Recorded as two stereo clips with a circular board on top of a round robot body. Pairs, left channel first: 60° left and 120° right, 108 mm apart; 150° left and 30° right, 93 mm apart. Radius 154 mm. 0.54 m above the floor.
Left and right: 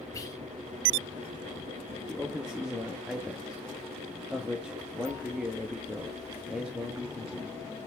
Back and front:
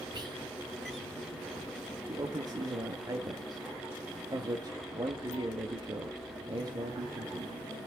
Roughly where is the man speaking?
Ahead right.